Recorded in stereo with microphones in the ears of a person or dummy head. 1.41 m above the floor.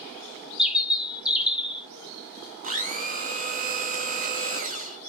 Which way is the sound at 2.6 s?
40° right (ahead or behind).